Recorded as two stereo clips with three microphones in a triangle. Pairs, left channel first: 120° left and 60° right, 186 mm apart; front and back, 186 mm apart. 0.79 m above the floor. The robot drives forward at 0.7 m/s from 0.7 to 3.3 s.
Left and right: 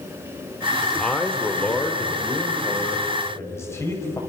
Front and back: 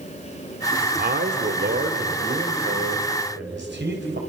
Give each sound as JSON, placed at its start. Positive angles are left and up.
{"t": 0.8, "sound": "a man speaking", "azimuth_deg": -150, "distance_m": 2.0}